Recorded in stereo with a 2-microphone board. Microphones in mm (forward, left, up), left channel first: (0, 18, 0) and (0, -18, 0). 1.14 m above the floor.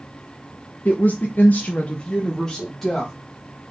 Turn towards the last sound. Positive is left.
turn(degrees=5)  # may be behind; listen again after turning